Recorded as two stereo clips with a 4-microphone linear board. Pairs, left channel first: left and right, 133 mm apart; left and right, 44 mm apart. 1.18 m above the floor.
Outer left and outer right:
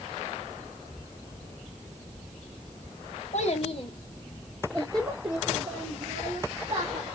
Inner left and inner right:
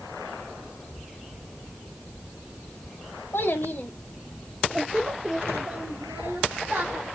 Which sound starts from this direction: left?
A child speaking, at 3.3 s.